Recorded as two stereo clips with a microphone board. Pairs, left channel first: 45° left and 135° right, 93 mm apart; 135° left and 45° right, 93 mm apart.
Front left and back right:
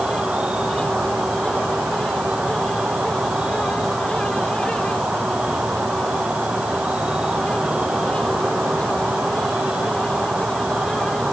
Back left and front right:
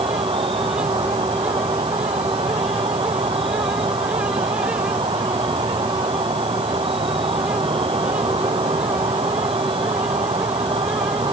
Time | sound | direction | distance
0.0 | an insect | 55° right | ?